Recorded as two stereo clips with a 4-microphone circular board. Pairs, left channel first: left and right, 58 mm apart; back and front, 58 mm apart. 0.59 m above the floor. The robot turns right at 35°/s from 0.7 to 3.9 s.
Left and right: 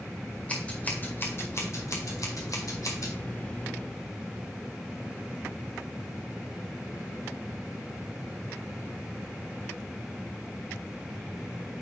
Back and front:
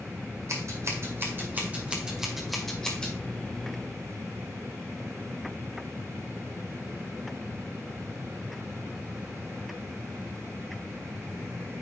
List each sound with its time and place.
0.5 s scissors: 25° left, 1.9 m; by 3.1 s 115° left, 1.9 m